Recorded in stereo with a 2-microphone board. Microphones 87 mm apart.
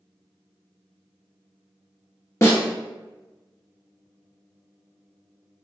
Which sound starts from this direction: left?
A snare drum, at 2.4 s.